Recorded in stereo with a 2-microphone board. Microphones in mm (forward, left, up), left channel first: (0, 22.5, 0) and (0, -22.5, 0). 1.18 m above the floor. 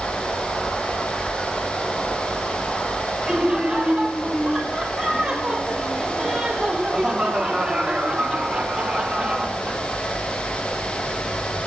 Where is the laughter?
15° right (ahead or behind), 5.5 m.